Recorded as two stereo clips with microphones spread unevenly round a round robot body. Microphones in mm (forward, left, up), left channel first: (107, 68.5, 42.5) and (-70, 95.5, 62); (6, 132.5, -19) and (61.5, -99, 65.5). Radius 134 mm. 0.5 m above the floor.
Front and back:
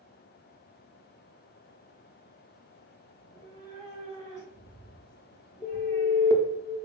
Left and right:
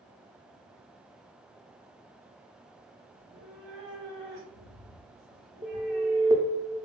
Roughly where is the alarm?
Ahead.